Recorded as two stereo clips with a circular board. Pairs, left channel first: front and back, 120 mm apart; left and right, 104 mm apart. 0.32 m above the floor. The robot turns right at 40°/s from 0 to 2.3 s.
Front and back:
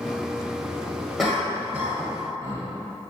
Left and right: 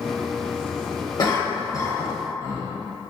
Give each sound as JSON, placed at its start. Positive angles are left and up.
{"t": 1.2, "sound": "a cough", "azimuth_deg": 90, "distance_m": 1.1}